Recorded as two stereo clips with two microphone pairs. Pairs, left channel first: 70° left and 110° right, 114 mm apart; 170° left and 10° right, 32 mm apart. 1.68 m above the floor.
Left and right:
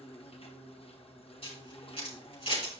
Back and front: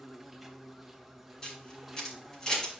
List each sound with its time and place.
0.0 s an insect: 75° left, 1.2 m
1.4 s a camera shutter: 100° left, 5 m